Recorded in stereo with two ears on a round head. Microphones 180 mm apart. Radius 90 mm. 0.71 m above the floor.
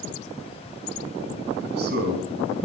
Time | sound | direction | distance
1.6 | a man speaking | 55° right (ahead or behind) | 5 m